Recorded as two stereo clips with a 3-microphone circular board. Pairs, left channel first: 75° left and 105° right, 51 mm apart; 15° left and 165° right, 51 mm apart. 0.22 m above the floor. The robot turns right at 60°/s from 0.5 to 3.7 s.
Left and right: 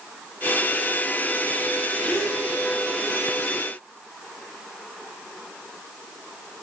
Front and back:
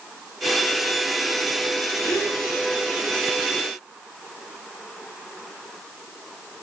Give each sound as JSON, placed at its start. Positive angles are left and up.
{"t": 2.0, "sound": "a gasp", "azimuth_deg": -5, "distance_m": 4.5}